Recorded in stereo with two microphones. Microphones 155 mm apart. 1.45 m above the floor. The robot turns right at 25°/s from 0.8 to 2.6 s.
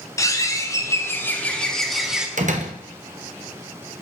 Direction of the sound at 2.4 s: 55° right (ahead or behind).